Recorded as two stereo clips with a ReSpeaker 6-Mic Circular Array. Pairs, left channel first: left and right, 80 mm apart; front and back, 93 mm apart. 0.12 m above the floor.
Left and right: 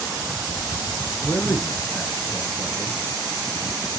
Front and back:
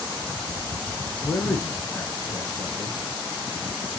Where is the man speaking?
55° left, 1.1 m.